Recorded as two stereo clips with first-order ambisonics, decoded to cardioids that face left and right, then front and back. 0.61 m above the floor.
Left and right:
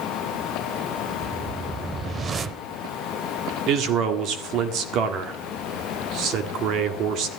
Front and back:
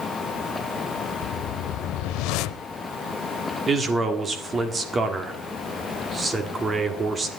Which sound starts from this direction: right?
A man speaking, at 3.7 s.